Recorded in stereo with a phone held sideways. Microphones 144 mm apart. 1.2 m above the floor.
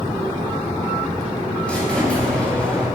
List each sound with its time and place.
1.7 s a squeak: 10° left (ahead or behind), 3.5 m